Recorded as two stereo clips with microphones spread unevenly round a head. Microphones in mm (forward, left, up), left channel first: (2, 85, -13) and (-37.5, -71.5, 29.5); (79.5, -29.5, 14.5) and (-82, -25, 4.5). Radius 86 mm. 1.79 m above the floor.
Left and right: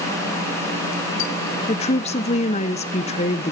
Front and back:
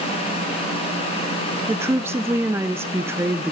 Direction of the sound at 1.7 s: 110° left.